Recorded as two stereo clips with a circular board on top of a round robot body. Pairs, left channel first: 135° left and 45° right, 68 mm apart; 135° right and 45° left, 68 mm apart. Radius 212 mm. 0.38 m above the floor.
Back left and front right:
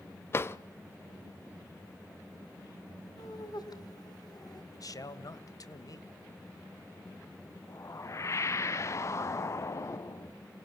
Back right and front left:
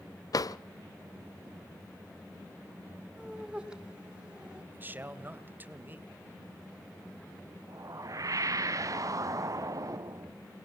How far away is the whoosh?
About 0.7 m.